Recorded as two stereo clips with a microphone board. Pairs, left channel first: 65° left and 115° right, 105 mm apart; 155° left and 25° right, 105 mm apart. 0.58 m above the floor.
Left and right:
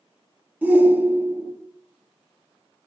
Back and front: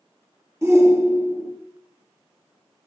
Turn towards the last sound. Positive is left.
turn(degrees=-55)